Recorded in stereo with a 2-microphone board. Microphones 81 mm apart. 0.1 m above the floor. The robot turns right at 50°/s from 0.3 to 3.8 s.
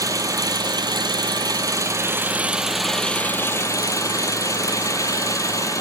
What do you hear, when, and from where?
0.0 s an engine running: 125° right, 0.8 m; by 5.8 s 50° left, 0.8 m